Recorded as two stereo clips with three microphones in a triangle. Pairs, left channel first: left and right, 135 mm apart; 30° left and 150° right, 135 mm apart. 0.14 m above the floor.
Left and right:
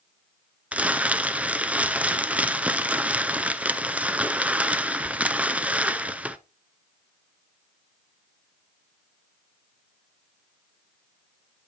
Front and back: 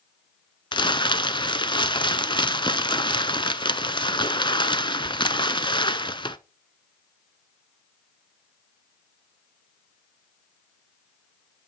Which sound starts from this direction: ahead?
Crumpling, at 0.7 s.